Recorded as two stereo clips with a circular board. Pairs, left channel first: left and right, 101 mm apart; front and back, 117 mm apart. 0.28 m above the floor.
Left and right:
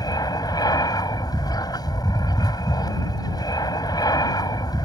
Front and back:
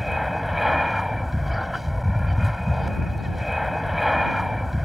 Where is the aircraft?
90° left.